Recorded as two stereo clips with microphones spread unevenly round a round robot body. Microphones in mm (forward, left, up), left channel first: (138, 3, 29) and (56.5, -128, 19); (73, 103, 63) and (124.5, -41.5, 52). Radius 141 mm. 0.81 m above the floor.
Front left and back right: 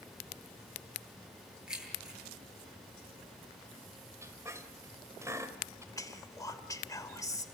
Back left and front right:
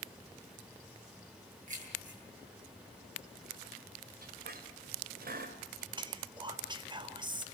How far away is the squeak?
About 2.5 m.